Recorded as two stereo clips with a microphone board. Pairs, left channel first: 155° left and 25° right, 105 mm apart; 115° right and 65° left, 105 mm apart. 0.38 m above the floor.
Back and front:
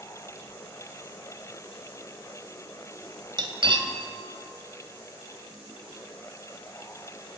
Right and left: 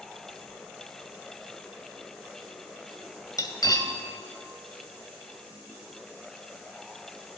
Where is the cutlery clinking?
60° right, 1.2 m.